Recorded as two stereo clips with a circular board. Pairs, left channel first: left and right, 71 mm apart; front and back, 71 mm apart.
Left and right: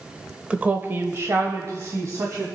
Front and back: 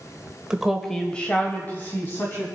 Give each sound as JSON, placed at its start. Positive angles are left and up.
{"t": 0.5, "sound": "a woman speaking", "azimuth_deg": -125, "distance_m": 0.9}